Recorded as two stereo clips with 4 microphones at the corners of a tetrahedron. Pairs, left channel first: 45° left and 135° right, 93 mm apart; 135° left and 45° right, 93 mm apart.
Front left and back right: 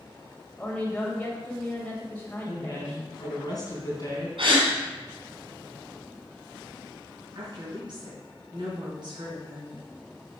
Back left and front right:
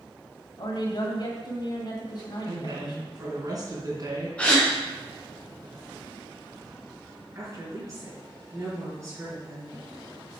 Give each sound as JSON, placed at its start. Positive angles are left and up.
{"t": 0.6, "sound": "a woman speaking", "azimuth_deg": 120, "distance_m": 2.0}
{"t": 2.5, "sound": "a woman speaking", "azimuth_deg": 0, "distance_m": 3.5}
{"t": 4.4, "sound": "a gasp", "azimuth_deg": -145, "distance_m": 2.5}
{"t": 7.3, "sound": "a woman speaking", "azimuth_deg": -100, "distance_m": 4.5}